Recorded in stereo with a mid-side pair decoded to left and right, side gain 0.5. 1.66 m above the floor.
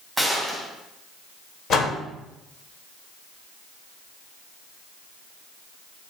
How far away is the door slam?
About 1.3 m.